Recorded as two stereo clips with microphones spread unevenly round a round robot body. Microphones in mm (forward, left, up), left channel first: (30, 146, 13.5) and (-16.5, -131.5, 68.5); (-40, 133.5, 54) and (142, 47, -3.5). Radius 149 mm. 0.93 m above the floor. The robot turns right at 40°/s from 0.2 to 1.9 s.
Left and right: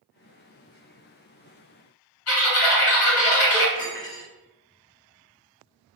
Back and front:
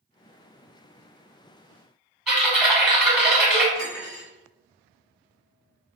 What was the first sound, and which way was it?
Typing on a keyboard, 55° left.